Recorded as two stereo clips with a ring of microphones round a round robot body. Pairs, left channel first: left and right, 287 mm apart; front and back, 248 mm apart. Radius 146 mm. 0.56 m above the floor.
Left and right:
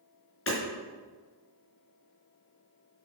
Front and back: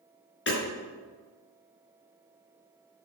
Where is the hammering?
45° left, 4.5 m.